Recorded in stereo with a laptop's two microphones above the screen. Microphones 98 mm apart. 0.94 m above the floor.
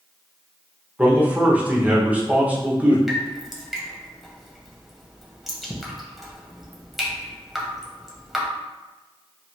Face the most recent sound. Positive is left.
turn(degrees=-5)  # may be behind; listen again after turning